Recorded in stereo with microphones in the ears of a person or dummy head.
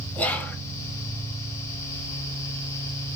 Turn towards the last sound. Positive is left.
turn(degrees=10)  # may be behind; listen again after turning